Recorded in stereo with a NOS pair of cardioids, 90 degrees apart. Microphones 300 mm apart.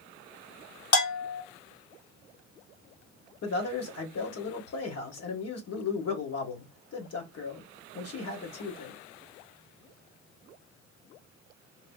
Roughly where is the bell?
Ahead left.